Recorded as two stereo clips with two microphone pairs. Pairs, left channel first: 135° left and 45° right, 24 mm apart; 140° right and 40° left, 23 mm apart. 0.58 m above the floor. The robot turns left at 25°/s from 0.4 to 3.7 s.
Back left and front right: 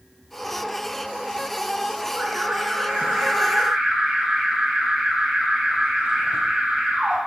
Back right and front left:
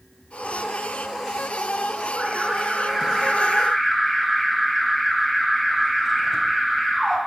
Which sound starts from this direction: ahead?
An alarm, at 2.1 s.